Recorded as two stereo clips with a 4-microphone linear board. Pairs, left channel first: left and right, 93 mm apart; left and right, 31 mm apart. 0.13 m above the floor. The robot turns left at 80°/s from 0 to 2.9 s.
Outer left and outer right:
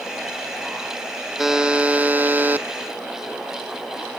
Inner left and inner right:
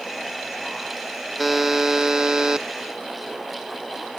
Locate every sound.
1.4 s a buzzer: 5° right (ahead or behind), 0.6 m; by 2.7 s 20° right (ahead or behind), 0.6 m